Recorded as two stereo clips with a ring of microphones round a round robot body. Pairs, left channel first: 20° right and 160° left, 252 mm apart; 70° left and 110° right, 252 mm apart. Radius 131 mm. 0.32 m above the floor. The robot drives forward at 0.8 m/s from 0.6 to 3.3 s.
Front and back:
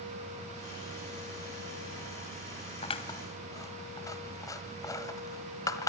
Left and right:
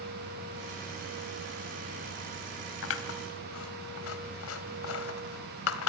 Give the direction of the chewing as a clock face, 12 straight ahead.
I don't hear chewing.